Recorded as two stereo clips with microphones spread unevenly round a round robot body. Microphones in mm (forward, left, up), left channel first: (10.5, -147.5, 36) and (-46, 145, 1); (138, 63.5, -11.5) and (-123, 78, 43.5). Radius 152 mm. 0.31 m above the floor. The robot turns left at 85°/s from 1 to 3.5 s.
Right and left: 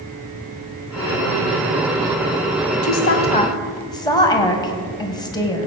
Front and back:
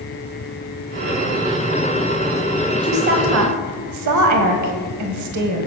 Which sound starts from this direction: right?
A woman speaking, at 2.8 s.